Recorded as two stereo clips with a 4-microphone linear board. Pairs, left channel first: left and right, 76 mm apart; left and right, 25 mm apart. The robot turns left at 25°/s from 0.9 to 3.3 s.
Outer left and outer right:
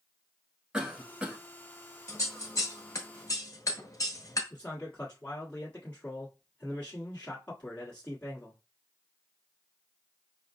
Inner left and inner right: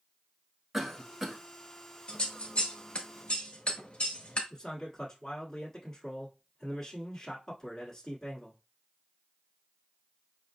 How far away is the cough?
About 1.1 m.